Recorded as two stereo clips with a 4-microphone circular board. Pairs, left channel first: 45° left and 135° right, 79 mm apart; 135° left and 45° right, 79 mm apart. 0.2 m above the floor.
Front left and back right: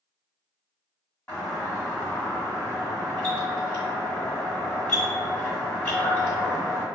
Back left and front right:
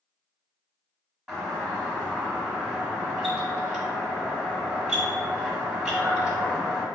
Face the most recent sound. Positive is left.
turn(degrees=25)